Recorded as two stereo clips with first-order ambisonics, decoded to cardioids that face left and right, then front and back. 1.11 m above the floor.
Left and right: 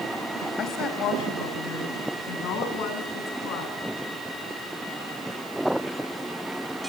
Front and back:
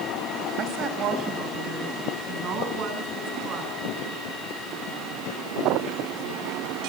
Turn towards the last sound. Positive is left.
turn(degrees=130)